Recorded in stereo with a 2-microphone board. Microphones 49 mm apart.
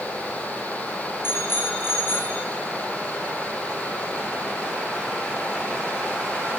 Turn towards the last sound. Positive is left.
turn(degrees=50)  # may be behind; listen again after turning